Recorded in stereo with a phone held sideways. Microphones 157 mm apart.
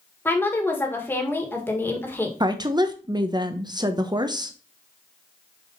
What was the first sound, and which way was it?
A woman speaking, 15° left (ahead or behind).